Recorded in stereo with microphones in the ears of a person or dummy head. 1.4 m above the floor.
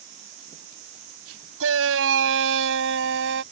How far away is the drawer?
I don't hear a drawer.